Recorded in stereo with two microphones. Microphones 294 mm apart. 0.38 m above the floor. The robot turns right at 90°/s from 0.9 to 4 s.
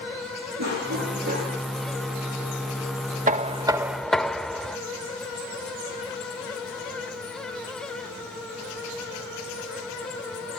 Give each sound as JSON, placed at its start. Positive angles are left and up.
{"t": 0.6, "sound": "a cough", "azimuth_deg": -65, "distance_m": 8.0}
{"t": 3.3, "sound": "knocking", "azimuth_deg": -65, "distance_m": 0.5}